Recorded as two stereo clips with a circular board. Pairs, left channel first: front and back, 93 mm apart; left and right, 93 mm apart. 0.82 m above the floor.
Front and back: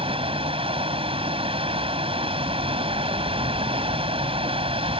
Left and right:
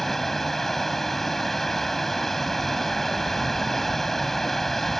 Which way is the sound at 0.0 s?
175° left.